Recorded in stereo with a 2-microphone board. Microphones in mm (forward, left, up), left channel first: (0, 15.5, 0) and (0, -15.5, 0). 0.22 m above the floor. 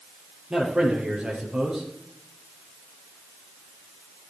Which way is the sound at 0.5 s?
30° right (ahead or behind).